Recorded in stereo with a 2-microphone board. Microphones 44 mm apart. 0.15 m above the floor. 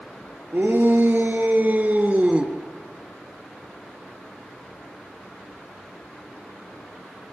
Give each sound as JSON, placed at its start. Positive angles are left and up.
{"t": 0.5, "sound": "a shout", "side_deg": -55, "distance_m": 3.0}